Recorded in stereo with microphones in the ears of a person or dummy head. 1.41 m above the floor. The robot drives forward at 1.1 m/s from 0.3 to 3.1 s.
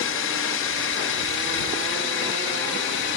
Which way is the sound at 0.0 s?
60° left (ahead or behind).